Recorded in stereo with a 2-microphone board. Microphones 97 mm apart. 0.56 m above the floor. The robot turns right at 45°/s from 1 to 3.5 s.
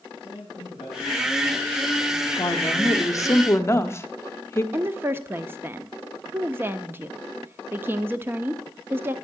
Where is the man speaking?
105° left, 6.5 m; by 2.3 s 165° left, 6.5 m.